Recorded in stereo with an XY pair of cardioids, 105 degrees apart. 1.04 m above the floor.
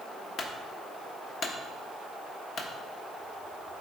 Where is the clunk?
55° left, 1.3 m.